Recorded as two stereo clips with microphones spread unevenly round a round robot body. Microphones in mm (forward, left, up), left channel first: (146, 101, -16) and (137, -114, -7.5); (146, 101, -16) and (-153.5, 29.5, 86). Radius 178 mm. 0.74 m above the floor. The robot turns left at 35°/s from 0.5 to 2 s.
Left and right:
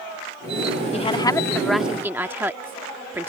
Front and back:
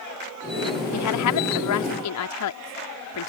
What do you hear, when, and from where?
0.9 s a woman speaking: 25° left; by 3.3 s 10° right